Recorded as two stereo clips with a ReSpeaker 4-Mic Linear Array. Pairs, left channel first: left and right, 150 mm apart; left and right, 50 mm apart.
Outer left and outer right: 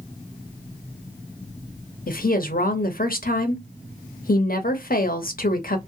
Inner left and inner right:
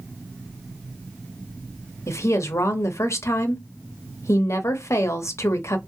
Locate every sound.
2.1 s a woman speaking: 75° left (ahead or behind), 0.6 m